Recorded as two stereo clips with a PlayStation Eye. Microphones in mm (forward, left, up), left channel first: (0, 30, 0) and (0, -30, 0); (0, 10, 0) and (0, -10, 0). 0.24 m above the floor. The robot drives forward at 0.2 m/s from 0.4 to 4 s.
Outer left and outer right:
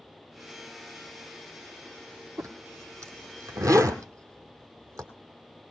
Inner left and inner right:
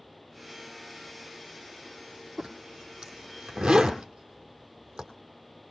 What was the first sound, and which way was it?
A zipper, 55° right (ahead or behind).